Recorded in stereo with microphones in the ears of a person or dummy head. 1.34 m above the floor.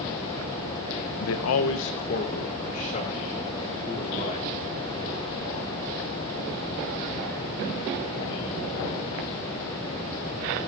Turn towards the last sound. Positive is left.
turn(degrees=30)  # may be behind; listen again after turning